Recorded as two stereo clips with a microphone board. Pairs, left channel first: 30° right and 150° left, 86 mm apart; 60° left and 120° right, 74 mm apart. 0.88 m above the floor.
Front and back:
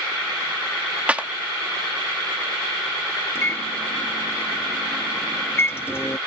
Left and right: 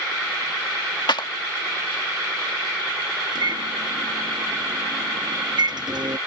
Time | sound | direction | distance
1.1 | a clap | 75° left | ?
3.4 | a microwave | 95° right | ?